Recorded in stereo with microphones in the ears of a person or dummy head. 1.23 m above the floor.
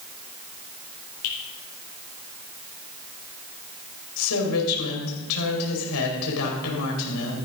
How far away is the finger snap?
About 4.5 m.